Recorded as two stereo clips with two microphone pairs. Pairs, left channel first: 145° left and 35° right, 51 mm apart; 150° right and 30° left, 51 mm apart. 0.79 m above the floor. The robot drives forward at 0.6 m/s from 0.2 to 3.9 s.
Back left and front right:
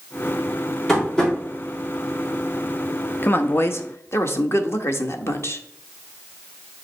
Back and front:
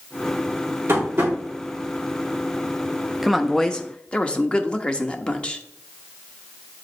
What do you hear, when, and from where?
0.9 s tapping: 60° left, 3.5 m; by 1.3 s 65° left, 3.5 m
3.2 s a woman speaking: 120° left, 0.7 m; by 5.6 s 145° left, 0.9 m